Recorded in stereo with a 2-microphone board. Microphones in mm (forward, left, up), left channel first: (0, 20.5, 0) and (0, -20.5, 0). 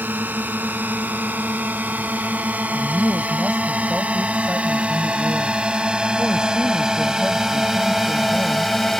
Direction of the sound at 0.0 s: 50° right (ahead or behind).